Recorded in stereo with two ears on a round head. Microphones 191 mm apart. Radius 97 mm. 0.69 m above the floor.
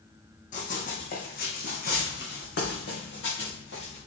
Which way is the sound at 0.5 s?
35° left (ahead or behind).